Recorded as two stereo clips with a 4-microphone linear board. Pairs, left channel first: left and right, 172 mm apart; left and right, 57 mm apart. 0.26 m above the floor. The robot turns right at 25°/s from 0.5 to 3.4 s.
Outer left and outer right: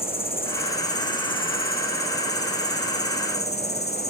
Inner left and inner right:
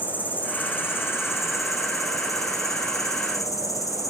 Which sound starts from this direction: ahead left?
An insect, at 0.0 s.